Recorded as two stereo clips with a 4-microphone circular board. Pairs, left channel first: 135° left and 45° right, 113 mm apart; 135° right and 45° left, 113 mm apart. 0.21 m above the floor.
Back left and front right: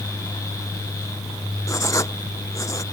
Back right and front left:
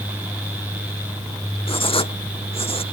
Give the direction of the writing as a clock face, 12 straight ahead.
5 o'clock.